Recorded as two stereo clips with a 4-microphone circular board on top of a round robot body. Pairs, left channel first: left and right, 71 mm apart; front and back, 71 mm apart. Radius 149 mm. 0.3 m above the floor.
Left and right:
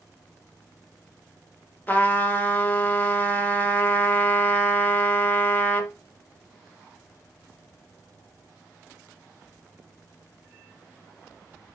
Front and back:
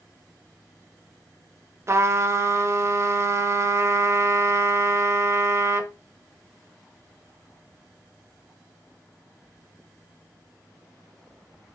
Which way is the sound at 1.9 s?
145° left.